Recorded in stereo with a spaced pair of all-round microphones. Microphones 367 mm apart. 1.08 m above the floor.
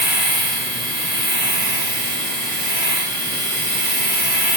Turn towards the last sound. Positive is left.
turn(degrees=25)  # may be behind; listen again after turning